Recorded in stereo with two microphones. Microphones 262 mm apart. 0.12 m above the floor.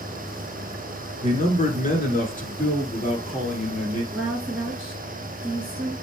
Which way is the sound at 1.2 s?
25° left (ahead or behind).